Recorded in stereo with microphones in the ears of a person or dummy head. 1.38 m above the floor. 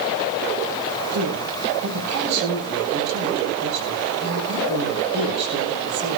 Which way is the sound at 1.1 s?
60° right (ahead or behind).